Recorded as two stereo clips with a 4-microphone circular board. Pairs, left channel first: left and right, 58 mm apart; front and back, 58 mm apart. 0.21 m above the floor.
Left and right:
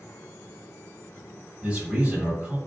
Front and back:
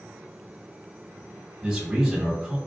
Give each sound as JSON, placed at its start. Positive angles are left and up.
{"t": 1.6, "sound": "a man speaking", "azimuth_deg": -120, "distance_m": 1.5}